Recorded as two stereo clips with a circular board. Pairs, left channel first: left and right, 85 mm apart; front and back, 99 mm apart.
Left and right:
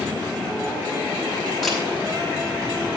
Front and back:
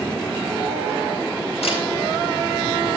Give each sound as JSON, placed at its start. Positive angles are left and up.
{"t": 1.6, "sound": "a camera shutter", "azimuth_deg": 0, "distance_m": 7.5}